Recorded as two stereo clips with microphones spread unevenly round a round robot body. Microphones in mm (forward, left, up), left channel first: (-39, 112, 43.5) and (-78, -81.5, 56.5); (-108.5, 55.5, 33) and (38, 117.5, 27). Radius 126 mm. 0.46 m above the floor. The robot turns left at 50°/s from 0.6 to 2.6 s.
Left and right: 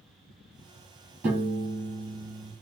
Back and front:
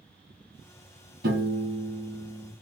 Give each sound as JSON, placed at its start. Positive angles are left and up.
{"t": 1.2, "sound": "a piano", "azimuth_deg": -20, "distance_m": 2.5}